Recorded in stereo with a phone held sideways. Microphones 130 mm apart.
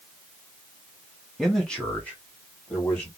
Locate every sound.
1.4 s a man speaking: centre (ahead or behind), 0.8 m; by 3.1 s 15° left (ahead or behind), 1.9 m